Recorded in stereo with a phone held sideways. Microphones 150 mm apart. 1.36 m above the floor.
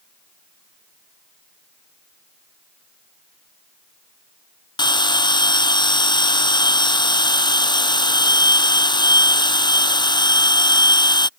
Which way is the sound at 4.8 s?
30° left (ahead or behind).